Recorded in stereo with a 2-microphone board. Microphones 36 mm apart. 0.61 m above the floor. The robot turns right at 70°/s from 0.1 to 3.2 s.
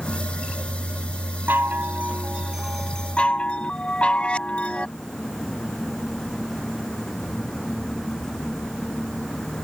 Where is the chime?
90° right; by 4.9 s 30° left.